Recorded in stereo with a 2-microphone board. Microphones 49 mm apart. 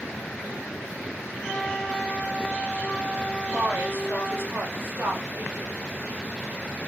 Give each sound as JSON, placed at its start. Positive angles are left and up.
{"t": 1.4, "sound": "a flute", "side_deg": 20, "distance_m": 0.9}
{"t": 3.5, "sound": "a woman speaking", "side_deg": -50, "distance_m": 1.7}